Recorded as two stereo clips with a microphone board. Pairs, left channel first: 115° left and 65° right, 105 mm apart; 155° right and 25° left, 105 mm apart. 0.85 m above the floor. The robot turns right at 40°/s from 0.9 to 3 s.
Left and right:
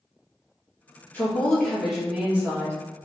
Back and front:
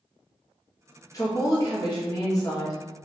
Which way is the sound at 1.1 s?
175° left.